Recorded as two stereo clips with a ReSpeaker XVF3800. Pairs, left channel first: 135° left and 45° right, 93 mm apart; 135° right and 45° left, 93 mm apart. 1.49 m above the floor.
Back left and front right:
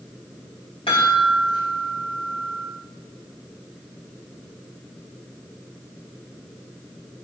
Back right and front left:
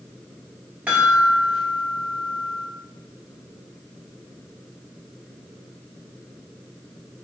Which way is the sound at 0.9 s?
120° left.